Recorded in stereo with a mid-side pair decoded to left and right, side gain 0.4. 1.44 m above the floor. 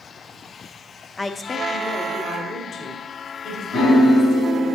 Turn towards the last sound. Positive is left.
turn(degrees=70)